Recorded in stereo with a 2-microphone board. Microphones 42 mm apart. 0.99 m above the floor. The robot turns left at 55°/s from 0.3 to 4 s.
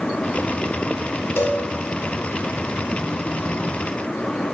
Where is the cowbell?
75° left (ahead or behind), 3.5 m; by 1.6 s 85° left, 3.5 m.